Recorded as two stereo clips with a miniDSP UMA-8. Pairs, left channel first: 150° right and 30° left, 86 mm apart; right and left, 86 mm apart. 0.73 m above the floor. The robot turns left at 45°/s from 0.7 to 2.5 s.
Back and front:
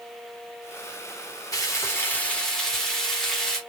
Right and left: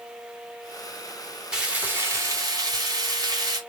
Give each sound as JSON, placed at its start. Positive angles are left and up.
{"t": 1.5, "sound": "frying", "azimuth_deg": 170, "distance_m": 2.5}